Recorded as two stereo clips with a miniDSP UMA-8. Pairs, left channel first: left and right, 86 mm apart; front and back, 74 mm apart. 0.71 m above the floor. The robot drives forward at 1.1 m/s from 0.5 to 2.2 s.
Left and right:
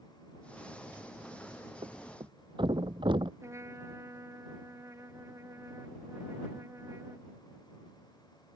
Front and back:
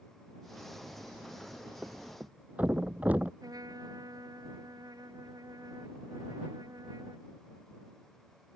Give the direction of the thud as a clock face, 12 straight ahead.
4 o'clock.